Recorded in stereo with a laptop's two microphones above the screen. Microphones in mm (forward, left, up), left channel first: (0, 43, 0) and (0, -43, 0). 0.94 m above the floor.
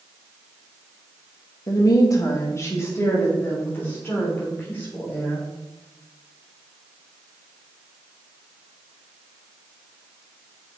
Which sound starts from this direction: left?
A woman speaking, at 1.7 s.